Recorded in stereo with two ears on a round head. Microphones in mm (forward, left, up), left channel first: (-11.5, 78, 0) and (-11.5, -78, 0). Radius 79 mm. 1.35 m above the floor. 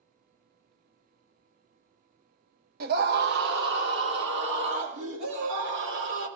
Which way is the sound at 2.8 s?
60° right (ahead or behind).